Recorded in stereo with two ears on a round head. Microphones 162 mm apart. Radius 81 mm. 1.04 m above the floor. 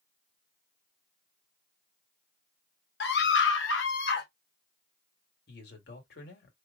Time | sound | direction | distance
3.0 | a scream | 60° left (ahead or behind) | 1.0 m
5.5 | a man speaking | 60° left (ahead or behind) | 1.9 m